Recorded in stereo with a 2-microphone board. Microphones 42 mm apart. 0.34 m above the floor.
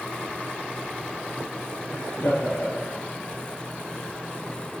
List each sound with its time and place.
1.9 s laughter: 80° left, 6 m